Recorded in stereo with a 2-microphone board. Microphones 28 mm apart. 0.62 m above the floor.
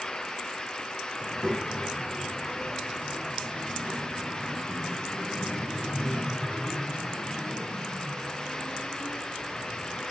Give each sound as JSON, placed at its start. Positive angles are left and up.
{"t": 1.2, "sound": "a child speaking", "side_deg": -35, "distance_m": 2.5}